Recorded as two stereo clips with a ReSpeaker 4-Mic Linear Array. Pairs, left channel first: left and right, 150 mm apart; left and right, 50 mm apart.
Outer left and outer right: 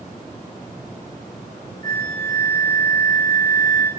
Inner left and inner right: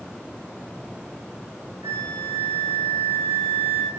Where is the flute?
70° right (ahead or behind), 2 m.